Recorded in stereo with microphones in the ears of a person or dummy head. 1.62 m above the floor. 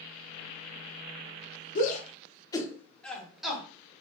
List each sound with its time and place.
1.8 s a shout: 45° left (ahead or behind), 0.8 m; by 4.0 s 10° right (ahead or behind), 1.6 m